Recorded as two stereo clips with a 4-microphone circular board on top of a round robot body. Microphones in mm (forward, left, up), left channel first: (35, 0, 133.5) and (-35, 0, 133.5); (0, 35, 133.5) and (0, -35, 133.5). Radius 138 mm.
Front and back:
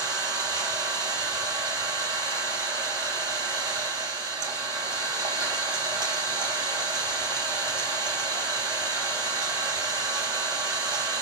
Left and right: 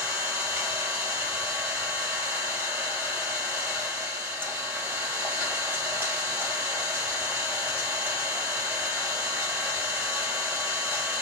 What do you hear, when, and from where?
0.0 s an engine running: 155° right, 4 m